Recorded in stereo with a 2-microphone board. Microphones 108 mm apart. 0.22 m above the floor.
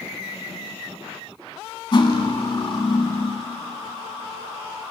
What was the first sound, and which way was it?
Cutlery clinking, 45° left (ahead or behind).